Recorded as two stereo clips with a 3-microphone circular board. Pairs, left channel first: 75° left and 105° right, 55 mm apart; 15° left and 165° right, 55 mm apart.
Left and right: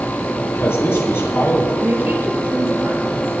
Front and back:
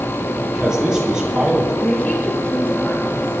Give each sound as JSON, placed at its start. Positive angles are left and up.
{"t": 0.4, "sound": "a man speaking", "azimuth_deg": 115, "distance_m": 7.5}
{"t": 1.8, "sound": "a woman speaking", "azimuth_deg": -50, "distance_m": 7.0}